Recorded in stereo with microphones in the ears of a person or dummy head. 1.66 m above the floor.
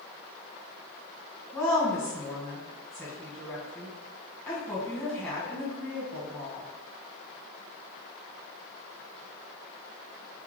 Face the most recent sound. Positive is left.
turn(degrees=5)  # may be behind; listen again after turning